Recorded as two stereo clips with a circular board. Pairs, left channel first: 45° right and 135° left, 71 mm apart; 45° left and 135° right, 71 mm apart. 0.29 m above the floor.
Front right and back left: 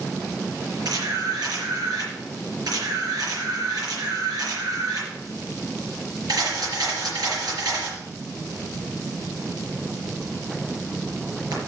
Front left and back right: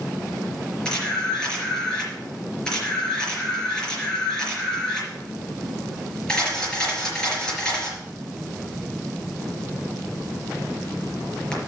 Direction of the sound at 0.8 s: 120° left.